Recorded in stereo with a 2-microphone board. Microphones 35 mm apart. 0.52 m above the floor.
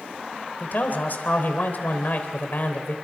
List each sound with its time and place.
0.6 s a man speaking: 55° left (ahead or behind), 3 m